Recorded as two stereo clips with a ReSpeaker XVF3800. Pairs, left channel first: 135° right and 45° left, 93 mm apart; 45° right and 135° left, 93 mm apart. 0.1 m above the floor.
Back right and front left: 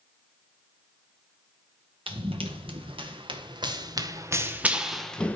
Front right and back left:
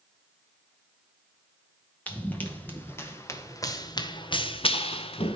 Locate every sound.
2.1 s running footsteps: 30° left, 2.5 m; by 5.4 s 60° right, 1.2 m